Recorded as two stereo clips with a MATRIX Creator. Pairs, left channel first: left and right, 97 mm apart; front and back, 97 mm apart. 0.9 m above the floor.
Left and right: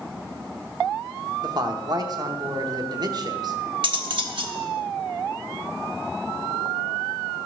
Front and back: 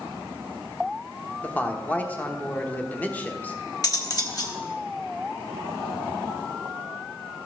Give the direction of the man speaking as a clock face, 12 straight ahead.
2 o'clock.